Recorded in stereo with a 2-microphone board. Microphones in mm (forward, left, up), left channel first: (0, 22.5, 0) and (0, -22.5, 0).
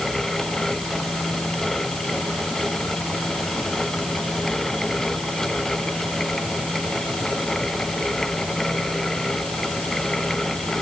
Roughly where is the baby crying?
No baby crying in this recording.